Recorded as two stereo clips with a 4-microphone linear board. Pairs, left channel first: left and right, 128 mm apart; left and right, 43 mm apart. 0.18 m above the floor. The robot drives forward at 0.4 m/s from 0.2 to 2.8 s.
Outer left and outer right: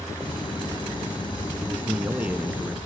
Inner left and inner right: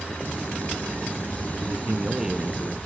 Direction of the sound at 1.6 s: 15° right (ahead or behind).